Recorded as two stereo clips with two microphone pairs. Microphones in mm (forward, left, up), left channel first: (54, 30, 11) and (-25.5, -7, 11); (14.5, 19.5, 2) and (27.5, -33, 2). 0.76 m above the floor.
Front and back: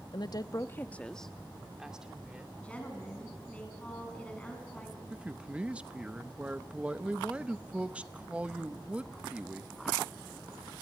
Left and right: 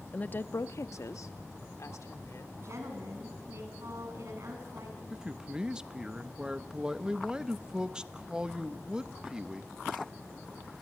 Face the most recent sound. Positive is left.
turn(degrees=-105)